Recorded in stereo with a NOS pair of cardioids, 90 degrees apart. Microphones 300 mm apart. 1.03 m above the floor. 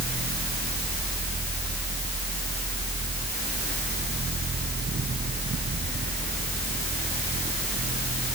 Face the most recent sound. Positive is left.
turn(degrees=-35)